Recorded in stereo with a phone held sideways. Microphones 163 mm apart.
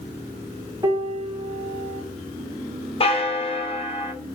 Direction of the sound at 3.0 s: 35° left (ahead or behind).